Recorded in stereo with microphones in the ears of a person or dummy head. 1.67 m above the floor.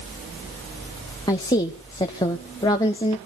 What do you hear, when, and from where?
1.3 s a woman speaking: 20° left (ahead or behind), 0.9 m